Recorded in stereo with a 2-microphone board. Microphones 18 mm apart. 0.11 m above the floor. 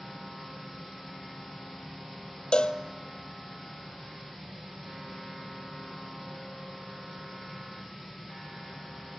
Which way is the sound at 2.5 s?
60° left (ahead or behind).